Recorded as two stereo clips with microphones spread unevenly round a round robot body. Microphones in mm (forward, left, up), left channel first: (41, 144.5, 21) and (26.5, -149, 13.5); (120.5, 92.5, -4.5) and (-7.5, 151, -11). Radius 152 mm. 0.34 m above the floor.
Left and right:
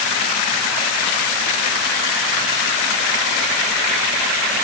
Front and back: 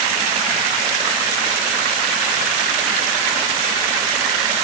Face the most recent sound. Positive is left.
No sound to turn to.